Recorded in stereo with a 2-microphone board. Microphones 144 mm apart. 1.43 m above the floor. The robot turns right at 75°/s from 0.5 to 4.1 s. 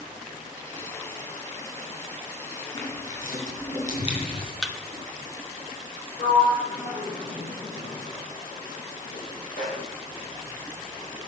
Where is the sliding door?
85° left, 4 m.